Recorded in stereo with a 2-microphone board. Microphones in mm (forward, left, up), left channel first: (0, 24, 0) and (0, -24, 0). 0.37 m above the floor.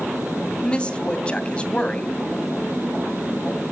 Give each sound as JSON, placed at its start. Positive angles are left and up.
{"t": 0.6, "sound": "a woman speaking", "side_deg": 25, "distance_m": 2.5}